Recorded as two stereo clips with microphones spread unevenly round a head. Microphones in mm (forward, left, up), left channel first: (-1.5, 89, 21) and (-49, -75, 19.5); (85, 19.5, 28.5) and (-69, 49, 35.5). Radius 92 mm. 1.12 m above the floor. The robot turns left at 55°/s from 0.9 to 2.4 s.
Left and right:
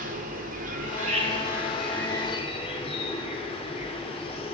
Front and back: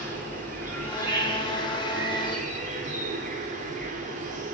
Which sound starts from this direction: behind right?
An insect, at 0.0 s.